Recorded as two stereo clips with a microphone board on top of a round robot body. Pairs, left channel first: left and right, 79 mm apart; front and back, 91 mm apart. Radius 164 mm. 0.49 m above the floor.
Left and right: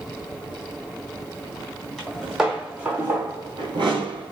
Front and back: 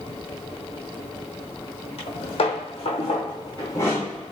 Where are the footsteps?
Straight ahead, 1.2 m; by 4.3 s 90° right, 0.8 m.